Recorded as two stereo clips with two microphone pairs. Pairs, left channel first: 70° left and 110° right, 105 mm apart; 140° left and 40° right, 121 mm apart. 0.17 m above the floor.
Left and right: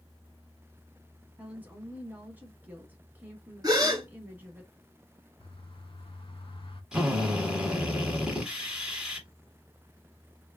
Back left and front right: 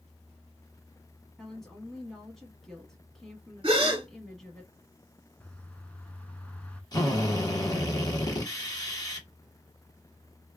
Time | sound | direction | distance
1.4 | a woman speaking | 140° right | 1.2 m
3.6 | a gasp | 75° right | 1.0 m
5.4 | a bird | 60° left | 0.6 m
6.9 | a drill | 170° left | 1.2 m